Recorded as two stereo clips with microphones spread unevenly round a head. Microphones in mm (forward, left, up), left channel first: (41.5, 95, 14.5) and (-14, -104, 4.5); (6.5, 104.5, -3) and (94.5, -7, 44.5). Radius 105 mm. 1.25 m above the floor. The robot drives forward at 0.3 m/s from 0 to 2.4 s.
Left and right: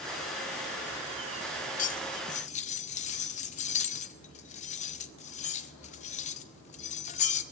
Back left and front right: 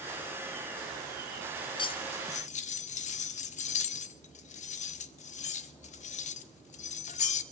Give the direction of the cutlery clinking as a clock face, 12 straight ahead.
10 o'clock.